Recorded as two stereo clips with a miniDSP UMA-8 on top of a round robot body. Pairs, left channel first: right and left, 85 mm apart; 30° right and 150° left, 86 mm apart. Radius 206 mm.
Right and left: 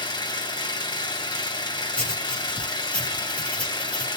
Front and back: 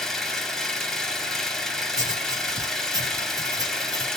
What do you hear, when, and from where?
0.0 s an engine running: 115° right, 1.9 m
1.9 s writing: 165° right, 3 m